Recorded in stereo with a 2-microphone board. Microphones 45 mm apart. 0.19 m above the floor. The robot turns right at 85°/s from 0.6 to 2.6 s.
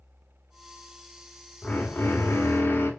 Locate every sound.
1.6 s a drill: 25° left, 1.1 m; by 2.9 s 110° left, 1.1 m